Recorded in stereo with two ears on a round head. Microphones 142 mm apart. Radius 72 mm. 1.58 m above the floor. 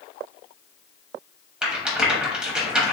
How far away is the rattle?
About 0.9 m.